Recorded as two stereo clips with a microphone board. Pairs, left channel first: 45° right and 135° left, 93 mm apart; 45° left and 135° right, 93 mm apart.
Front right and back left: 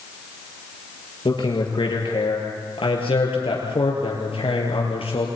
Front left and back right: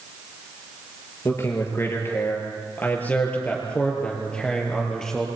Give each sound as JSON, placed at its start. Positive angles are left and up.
{"t": 1.2, "sound": "a man speaking", "azimuth_deg": -15, "distance_m": 6.0}